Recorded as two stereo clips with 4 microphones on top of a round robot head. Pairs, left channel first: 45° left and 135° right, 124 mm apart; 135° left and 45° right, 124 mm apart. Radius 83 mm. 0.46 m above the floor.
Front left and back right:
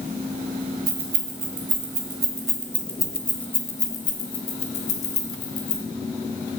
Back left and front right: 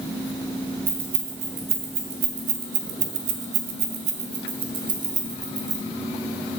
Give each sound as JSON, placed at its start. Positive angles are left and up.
{"t": 0.9, "sound": "keys jangling", "azimuth_deg": -95, "distance_m": 2.5}